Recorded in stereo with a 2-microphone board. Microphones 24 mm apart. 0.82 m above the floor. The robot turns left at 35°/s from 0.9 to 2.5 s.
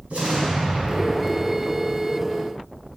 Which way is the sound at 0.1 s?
80° right.